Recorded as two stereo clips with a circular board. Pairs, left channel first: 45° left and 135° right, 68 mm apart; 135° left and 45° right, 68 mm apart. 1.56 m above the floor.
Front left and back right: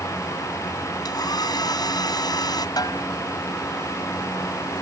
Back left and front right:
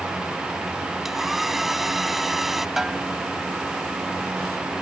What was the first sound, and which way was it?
A hair dryer, 40° left.